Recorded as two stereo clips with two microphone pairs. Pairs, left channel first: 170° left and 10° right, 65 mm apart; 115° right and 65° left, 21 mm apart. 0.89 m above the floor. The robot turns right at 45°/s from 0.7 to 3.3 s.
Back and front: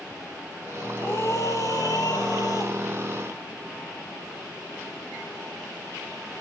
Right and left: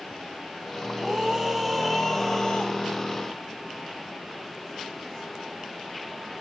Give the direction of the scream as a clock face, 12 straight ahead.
8 o'clock.